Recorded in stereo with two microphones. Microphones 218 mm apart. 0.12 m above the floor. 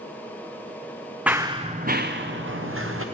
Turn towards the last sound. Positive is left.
turn(degrees=-75)  # may be behind; listen again after turning